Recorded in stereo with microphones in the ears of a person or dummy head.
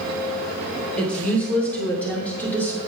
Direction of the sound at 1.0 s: 10° left (ahead or behind).